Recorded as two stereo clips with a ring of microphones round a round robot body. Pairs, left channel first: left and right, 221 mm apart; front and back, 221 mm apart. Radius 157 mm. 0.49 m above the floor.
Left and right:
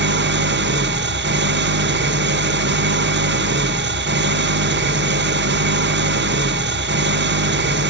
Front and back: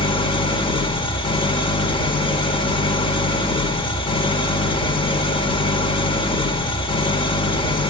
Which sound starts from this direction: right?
An engine running, at 0.0 s.